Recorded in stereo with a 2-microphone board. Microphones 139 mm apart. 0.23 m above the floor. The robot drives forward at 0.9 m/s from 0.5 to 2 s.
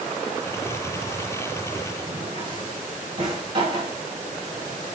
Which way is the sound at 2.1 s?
35° right (ahead or behind).